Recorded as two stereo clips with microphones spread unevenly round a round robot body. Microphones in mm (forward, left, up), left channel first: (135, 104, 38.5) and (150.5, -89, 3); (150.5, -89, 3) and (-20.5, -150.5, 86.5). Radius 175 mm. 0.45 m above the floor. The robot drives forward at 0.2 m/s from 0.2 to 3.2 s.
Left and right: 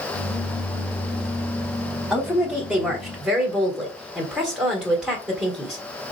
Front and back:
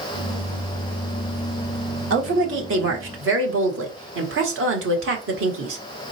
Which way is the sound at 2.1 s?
155° right.